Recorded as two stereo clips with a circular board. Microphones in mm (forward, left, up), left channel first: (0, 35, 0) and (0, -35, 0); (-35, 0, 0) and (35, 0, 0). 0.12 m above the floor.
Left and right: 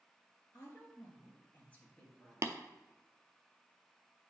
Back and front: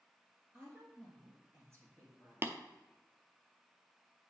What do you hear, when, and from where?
0.5 s a woman speaking: 45° left, 3 m; by 2.6 s 5° left, 2 m
2.4 s tapping: 50° right, 0.6 m